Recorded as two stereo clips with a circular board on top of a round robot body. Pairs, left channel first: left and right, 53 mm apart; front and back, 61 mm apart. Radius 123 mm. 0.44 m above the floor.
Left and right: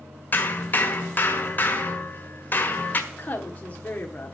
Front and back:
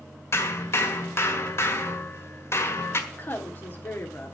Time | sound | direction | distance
0.3 | hammering | 40° left | 1.8 m
3.1 | a woman speaking | 40° left | 1.4 m